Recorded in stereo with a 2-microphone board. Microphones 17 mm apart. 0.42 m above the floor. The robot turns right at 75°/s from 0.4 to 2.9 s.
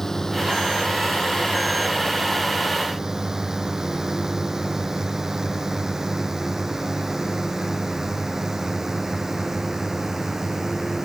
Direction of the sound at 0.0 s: 25° left (ahead or behind).